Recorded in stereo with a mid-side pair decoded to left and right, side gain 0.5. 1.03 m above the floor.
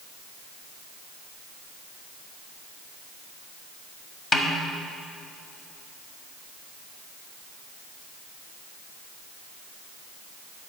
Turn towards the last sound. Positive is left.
turn(degrees=35)